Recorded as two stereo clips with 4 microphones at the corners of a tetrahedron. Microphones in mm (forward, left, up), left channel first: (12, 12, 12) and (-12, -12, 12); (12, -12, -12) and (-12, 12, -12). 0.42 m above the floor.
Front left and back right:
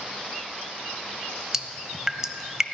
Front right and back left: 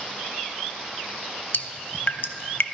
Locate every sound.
1.5 s dripping: 60° right, 0.6 m